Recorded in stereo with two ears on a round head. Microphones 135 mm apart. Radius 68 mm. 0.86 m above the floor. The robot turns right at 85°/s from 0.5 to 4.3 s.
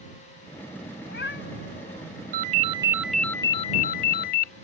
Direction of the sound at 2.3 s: 70° right.